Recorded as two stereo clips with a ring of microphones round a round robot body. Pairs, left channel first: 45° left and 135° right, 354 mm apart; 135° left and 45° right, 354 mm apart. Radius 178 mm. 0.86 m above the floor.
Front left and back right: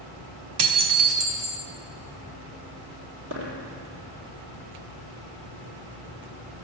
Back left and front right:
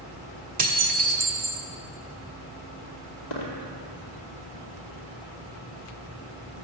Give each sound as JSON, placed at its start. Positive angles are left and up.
{"t": 0.6, "sound": "dishes clattering", "azimuth_deg": -115, "distance_m": 1.4}
{"t": 3.3, "sound": "a dropped coin", "azimuth_deg": 165, "distance_m": 2.5}